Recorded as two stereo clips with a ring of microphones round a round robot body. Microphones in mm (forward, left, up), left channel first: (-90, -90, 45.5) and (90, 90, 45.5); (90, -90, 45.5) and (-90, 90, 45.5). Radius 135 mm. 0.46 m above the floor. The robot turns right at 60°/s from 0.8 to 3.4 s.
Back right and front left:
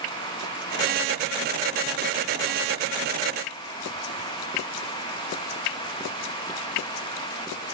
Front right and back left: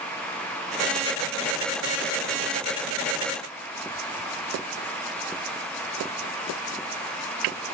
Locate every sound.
Only background noise.